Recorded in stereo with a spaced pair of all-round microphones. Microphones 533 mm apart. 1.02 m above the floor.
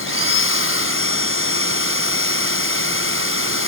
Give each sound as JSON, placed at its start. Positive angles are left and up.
{"t": 0.0, "sound": "a machine running", "side_deg": 25}